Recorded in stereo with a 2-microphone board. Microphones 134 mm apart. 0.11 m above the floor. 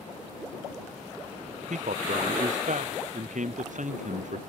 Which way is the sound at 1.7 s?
70° right (ahead or behind).